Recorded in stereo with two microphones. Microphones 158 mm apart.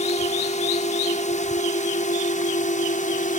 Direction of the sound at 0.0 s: 50° left (ahead or behind).